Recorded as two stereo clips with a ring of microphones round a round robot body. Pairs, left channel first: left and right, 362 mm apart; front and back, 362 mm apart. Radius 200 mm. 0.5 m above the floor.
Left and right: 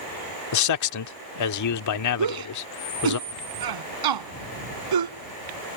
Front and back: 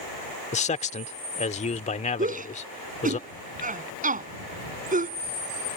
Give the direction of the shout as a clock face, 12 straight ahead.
4 o'clock.